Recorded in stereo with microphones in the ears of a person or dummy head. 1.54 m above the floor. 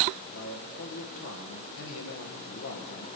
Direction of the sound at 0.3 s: 70° left (ahead or behind).